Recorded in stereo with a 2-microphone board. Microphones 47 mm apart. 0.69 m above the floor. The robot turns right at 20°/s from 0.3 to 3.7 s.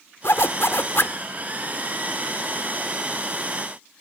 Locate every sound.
0.2 s a zipper: 65° left (ahead or behind); by 1.2 s 55° left (ahead or behind)